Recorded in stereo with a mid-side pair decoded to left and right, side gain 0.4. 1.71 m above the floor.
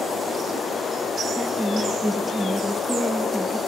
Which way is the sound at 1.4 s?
5° right.